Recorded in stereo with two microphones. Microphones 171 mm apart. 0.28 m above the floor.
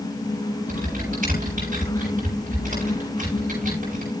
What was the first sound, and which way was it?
Typing on a keyboard, 60° right (ahead or behind).